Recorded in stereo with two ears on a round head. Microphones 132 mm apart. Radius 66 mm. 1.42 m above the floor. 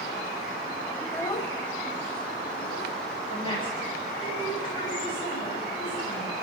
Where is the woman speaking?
35° left (ahead or behind), 8.5 m.